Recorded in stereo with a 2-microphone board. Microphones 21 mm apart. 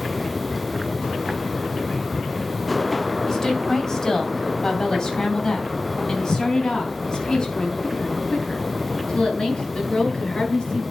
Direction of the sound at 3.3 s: 25° left (ahead or behind).